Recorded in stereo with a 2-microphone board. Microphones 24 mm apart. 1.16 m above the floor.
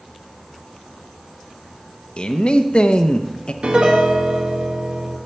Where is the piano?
50° right (ahead or behind), 1.5 m.